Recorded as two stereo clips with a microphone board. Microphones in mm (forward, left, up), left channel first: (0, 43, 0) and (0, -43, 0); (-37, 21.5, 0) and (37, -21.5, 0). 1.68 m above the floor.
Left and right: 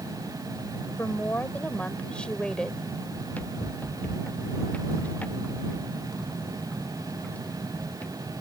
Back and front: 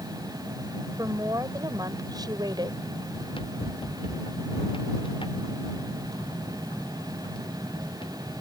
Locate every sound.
1.0 s a woman speaking: 25° left; by 2.9 s 5° left
3.1 s running footsteps: 160° left